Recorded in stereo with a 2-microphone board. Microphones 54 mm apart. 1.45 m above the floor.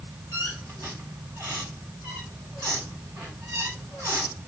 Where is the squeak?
65° right (ahead or behind), 7.5 m.